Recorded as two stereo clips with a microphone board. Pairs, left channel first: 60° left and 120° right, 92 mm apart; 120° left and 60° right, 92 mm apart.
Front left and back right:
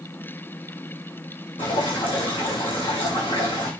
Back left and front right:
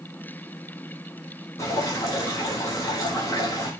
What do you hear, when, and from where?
1.6 s dripping: 65° left, 7.5 m